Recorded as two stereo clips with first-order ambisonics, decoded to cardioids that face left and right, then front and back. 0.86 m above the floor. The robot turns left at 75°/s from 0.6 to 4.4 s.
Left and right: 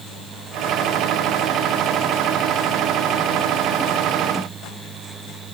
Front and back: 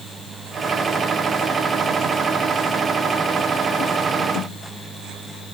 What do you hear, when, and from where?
Only background noise.